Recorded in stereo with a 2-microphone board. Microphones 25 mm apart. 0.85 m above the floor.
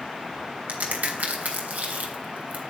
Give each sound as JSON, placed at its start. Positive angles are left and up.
{"t": 0.7, "sound": "a crack", "side_deg": -85, "distance_m": 3.0}